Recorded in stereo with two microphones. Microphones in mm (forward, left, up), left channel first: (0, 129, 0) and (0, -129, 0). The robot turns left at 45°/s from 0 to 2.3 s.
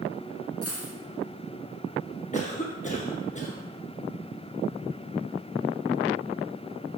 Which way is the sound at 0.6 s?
60° left (ahead or behind).